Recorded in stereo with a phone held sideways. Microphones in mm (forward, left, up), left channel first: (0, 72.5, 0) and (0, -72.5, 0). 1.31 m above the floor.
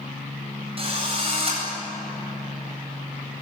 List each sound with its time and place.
0.8 s a drill: 40° right (ahead or behind), 9 m